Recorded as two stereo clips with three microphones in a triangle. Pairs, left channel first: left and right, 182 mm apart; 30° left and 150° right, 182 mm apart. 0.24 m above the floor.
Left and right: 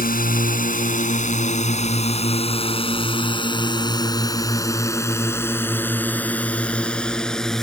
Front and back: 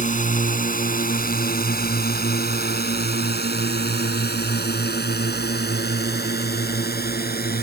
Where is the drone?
65° left; by 7.6 s 5° left.